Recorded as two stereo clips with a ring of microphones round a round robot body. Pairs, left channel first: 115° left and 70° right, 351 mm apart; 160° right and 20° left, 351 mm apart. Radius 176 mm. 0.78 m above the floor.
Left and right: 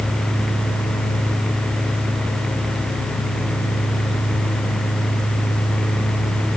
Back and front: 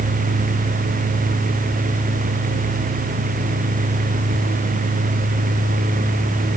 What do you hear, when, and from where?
Only background noise.